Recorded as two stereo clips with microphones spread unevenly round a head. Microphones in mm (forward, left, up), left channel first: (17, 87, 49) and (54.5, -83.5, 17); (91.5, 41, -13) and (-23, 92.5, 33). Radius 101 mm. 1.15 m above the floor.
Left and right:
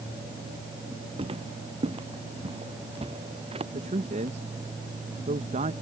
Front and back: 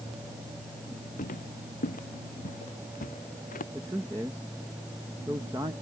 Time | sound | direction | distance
1.2 | footsteps | 20° right | ?
3.7 | a man speaking | 125° right | ?